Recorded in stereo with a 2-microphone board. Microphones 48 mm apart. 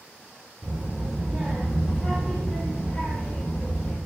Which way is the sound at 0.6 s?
40° right (ahead or behind).